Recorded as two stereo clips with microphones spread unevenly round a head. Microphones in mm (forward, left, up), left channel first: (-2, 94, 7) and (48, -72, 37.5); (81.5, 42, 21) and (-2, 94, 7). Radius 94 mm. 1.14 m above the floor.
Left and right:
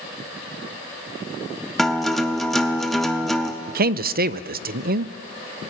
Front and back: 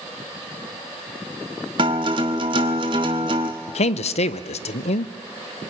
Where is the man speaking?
35° right, 0.6 m.